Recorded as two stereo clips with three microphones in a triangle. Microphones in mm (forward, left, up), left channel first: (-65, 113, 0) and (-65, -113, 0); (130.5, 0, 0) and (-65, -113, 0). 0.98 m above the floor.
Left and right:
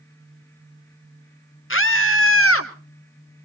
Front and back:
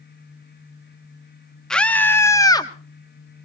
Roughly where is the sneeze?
I don't hear a sneeze.